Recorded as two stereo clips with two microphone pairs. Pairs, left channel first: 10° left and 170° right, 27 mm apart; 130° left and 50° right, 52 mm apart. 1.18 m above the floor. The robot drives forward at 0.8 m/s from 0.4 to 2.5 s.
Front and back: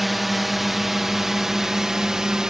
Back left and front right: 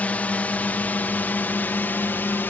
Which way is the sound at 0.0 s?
110° left.